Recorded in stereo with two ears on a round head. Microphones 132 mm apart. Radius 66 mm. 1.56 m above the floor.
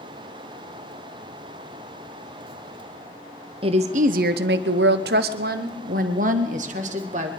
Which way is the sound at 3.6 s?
35° right (ahead or behind).